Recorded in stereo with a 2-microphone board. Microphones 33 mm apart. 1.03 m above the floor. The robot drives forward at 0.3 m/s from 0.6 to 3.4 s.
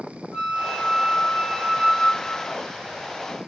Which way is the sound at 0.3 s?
15° left (ahead or behind).